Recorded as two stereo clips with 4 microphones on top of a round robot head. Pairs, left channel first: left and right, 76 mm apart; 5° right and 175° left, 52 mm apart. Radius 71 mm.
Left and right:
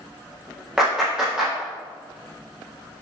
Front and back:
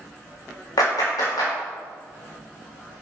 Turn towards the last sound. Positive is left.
turn(degrees=-10)